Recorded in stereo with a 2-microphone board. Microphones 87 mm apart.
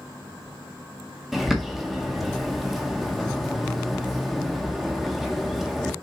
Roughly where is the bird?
Centre.